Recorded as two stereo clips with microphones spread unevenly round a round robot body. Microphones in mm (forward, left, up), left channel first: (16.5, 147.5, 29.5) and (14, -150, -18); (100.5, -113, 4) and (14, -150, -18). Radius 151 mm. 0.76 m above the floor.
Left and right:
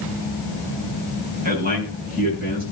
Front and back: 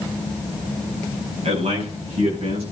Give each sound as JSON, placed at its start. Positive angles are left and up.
{"t": 1.4, "sound": "a man speaking", "azimuth_deg": -155, "distance_m": 6.5}